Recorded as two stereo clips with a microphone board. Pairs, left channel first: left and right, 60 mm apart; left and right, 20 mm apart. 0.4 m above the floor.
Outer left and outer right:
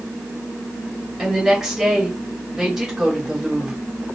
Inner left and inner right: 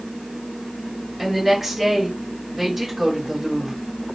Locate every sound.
1.2 s a woman speaking: 10° right (ahead or behind), 2 m